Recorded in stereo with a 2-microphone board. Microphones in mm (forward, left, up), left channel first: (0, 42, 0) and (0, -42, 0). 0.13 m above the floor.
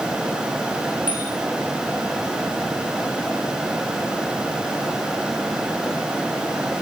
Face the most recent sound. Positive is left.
turn(degrees=85)